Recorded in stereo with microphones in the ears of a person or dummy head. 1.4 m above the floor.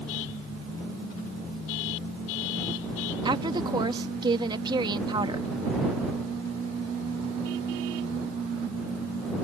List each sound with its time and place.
3.2 s a woman speaking: 25° right (ahead or behind)